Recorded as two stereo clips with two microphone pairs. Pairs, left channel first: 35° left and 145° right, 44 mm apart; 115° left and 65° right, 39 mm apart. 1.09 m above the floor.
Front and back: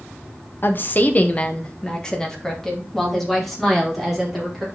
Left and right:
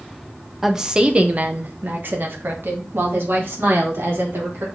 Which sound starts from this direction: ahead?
A woman speaking, at 0.6 s.